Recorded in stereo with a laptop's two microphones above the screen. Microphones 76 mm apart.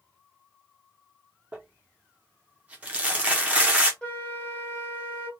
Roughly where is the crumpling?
Centre.